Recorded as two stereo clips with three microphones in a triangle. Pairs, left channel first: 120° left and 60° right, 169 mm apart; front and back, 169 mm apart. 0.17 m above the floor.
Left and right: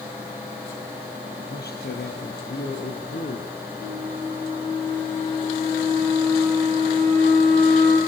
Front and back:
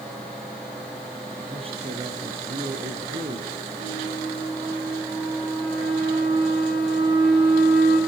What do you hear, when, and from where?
1.5 s a man speaking: 125° left, 4 m; by 3.5 s 145° left, 4.5 m
3.8 s a flute: 170° left, 7.5 m